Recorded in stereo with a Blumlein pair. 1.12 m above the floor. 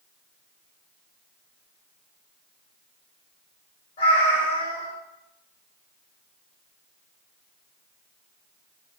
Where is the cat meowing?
65° left, 1.3 m.